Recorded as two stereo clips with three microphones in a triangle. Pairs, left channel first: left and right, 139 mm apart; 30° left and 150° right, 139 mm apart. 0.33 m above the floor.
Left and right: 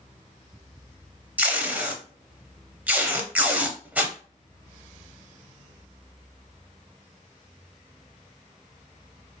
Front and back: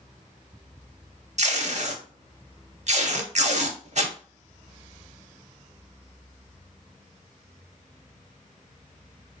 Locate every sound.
1.4 s tape being pulled: 170° right, 0.7 m